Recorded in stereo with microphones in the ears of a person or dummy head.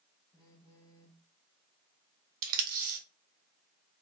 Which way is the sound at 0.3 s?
25° left (ahead or behind).